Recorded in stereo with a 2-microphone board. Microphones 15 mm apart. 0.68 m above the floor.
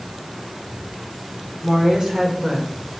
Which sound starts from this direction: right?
A woman speaking, at 1.6 s.